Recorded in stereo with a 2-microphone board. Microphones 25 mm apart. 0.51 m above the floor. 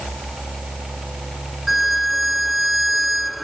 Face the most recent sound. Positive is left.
turn(degrees=-5)  # may be behind; listen again after turning